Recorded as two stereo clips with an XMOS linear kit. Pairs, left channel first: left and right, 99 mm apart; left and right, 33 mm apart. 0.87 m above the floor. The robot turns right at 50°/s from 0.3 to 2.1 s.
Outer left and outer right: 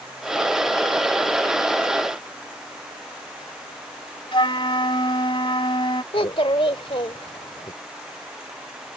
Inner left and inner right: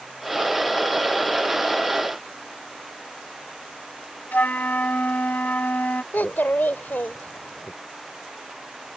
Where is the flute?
60° left (ahead or behind).